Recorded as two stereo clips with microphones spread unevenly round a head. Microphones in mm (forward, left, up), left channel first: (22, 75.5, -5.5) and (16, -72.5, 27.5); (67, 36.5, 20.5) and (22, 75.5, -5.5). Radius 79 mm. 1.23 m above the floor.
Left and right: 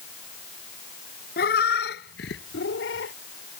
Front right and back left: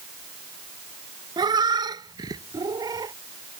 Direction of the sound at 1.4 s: 125° left.